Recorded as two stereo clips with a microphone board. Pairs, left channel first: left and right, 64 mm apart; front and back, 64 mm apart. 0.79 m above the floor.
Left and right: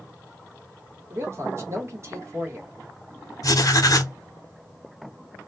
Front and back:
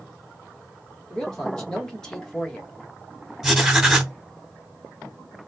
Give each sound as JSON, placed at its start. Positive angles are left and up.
{"t": 1.1, "sound": "a man speaking", "azimuth_deg": -75, "distance_m": 1.2}
{"t": 3.4, "sound": "writing", "azimuth_deg": 100, "distance_m": 0.7}